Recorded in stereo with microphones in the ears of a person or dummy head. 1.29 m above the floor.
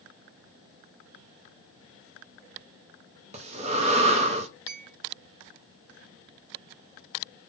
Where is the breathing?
30° right (ahead or behind), 0.7 m.